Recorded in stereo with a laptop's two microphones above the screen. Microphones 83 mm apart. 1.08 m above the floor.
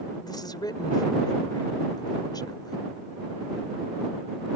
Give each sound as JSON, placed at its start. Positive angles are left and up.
{"t": 0.2, "sound": "a woman speaking", "side_deg": 55}